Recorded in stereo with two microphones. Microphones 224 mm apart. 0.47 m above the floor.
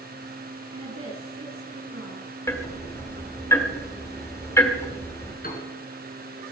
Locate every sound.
0.7 s a woman speaking: 75° right (ahead or behind), 4.5 m
2.5 s ticking: 10° left (ahead or behind), 1.5 m
5.4 s a piano: 40° left (ahead or behind), 3 m